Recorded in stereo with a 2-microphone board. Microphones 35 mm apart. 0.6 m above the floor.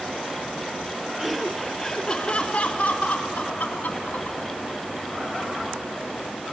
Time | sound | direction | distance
1.2 | laughter | 5° right (ahead or behind) | 0.7 m